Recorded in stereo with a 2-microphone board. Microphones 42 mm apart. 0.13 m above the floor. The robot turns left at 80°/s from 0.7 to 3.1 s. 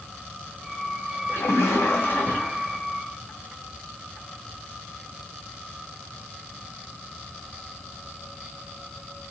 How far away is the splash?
About 1.4 m.